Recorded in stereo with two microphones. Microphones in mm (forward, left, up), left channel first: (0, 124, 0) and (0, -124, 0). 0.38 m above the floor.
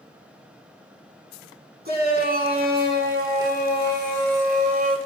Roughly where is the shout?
Right.